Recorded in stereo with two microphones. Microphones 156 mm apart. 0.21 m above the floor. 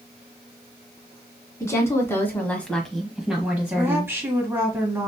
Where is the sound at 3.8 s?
15° right (ahead or behind), 1.2 m.